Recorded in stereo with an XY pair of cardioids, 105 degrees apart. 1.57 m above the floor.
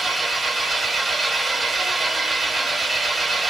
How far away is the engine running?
About 1.3 m.